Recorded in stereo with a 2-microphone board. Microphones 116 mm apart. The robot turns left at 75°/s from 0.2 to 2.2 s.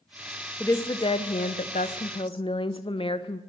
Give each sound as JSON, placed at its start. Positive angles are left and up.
{"t": 0.6, "sound": "a woman speaking", "azimuth_deg": 165, "distance_m": 0.6}